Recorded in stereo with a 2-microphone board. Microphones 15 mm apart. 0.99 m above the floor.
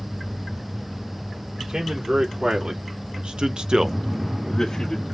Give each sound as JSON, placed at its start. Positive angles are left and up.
{"t": 1.6, "sound": "a man speaking", "side_deg": -60, "distance_m": 3.0}